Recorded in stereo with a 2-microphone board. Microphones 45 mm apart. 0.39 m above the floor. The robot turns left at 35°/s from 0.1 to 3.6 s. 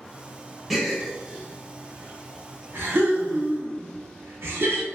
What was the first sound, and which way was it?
A gasp, centre (ahead or behind).